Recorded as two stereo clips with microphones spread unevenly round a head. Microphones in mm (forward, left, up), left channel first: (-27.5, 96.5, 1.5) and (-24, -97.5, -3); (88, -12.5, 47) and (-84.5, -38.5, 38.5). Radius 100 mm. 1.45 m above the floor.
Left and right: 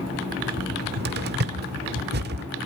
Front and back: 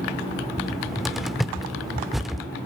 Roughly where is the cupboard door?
Right.